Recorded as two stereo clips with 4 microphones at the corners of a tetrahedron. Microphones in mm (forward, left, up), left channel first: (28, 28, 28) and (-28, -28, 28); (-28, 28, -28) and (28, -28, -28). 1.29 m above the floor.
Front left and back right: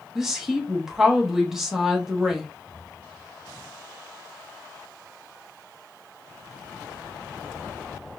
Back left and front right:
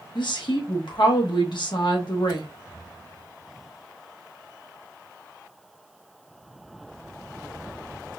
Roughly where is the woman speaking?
Behind left.